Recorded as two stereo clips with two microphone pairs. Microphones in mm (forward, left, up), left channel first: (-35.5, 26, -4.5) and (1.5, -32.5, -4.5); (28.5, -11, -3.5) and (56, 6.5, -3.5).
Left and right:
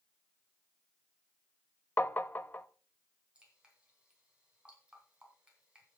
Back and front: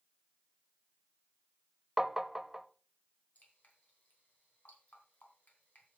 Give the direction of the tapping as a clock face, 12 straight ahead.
9 o'clock.